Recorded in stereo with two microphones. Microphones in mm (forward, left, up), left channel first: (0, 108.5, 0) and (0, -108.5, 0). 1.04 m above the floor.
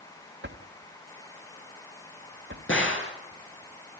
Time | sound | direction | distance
0.4 | a drawer | 60° right (ahead or behind) | 1.6 m
2.7 | a gunshot | 70° left (ahead or behind) | 3 m